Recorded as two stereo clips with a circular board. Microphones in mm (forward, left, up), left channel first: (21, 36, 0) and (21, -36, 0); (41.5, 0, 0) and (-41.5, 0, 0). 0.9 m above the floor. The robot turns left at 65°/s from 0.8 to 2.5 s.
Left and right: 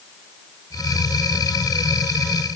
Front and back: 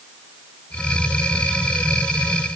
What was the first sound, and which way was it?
Only background noise.